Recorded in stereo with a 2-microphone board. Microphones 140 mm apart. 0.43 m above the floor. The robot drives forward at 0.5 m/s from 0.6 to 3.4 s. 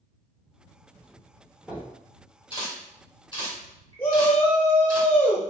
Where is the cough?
I don't hear a cough.